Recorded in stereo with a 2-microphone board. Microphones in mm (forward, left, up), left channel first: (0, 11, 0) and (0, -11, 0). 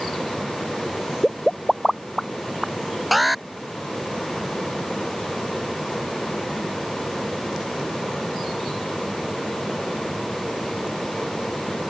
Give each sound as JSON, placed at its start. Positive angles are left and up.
{"t": 1.2, "sound": "a pop", "side_deg": -10}
{"t": 3.1, "sound": "an alarm", "side_deg": -10}